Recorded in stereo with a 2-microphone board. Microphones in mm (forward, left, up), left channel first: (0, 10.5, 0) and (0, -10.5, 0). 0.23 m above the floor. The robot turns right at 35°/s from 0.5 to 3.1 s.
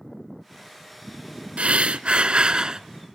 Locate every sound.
1.6 s breathing: 80° right, 0.6 m; by 2.8 s 35° right, 0.6 m